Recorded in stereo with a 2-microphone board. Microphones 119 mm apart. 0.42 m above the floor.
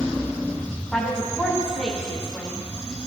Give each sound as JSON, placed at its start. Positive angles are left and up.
{"t": 0.9, "sound": "a woman speaking", "side_deg": 5, "distance_m": 3.5}